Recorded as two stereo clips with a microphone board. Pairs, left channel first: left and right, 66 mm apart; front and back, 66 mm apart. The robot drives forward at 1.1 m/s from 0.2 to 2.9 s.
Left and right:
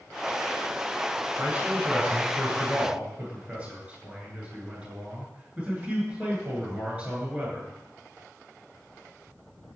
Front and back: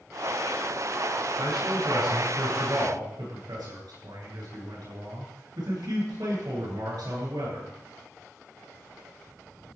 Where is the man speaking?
160° right, 9.5 m.